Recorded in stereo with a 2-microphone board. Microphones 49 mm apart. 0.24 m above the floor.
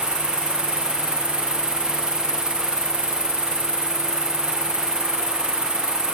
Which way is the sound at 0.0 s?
15° left (ahead or behind).